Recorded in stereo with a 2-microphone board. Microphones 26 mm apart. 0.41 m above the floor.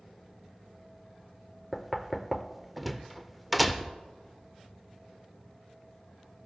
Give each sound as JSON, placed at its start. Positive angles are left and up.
{"t": 1.7, "sound": "knocking", "side_deg": 0, "distance_m": 0.6}